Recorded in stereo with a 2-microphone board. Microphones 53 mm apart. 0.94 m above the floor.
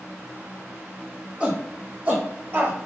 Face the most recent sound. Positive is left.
turn(degrees=-40)  # may be behind; listen again after turning